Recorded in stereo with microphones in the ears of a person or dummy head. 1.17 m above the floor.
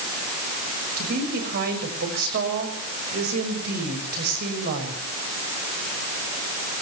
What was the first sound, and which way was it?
A woman speaking, 55° right (ahead or behind).